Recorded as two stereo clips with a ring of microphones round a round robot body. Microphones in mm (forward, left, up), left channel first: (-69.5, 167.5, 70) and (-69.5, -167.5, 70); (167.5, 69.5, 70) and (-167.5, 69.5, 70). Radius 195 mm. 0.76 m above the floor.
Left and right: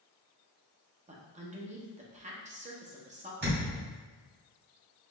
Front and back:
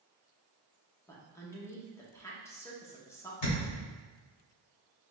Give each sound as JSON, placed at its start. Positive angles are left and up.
{"t": 1.1, "sound": "a woman speaking", "azimuth_deg": -70, "distance_m": 0.9}
{"t": 3.4, "sound": "a thud", "azimuth_deg": -25, "distance_m": 1.6}